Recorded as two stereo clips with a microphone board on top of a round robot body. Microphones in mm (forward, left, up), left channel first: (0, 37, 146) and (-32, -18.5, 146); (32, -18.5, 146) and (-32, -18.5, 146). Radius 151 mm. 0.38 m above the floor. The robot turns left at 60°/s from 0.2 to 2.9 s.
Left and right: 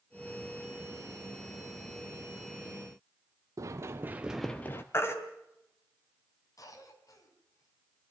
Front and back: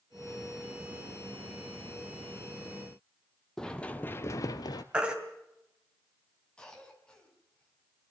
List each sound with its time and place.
3.6 s running footsteps: 80° right, 0.9 m; by 4.8 s 10° left, 0.7 m
4.9 s a baby crying: 105° left, 3 m
6.6 s a cough: 75° left, 4.5 m